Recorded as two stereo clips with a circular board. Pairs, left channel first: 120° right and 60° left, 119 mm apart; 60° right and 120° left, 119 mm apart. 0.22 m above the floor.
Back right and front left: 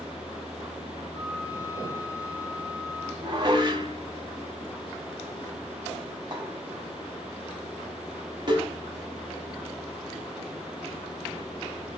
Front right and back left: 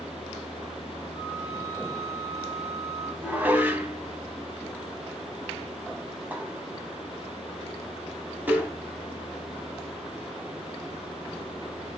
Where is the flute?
175° right, 2.5 m.